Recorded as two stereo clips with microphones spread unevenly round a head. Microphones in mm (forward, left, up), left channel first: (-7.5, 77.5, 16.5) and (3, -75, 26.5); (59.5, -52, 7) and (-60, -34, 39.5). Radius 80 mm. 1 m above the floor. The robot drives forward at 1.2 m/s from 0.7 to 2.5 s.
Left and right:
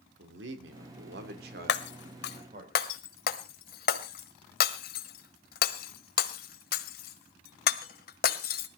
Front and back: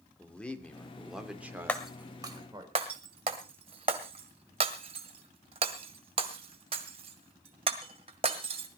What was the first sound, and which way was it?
A man speaking, 90° right.